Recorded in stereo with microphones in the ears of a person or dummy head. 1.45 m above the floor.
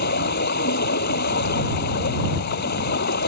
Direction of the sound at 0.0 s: 55° left (ahead or behind).